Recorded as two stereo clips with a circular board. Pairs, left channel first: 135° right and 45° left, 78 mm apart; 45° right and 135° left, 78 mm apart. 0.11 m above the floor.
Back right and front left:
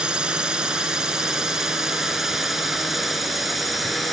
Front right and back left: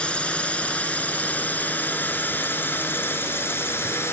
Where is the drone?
5° right; by 4.1 s 45° right.